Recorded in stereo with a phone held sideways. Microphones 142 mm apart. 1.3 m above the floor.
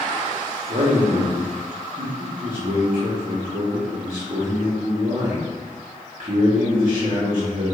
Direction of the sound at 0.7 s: 60° right (ahead or behind).